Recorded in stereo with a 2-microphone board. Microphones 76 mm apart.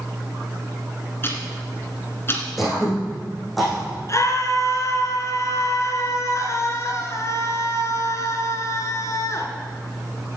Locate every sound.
1.2 s ticking: 35° left (ahead or behind), 2 m
2.6 s throat clearing: centre (ahead or behind), 5 m
4.1 s a scream: 45° left (ahead or behind), 2.5 m